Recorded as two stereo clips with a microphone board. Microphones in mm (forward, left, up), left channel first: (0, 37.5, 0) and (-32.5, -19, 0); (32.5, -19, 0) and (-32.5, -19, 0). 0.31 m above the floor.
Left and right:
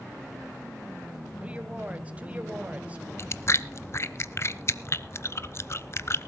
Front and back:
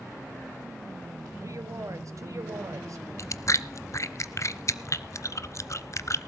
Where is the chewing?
25° left, 0.5 m.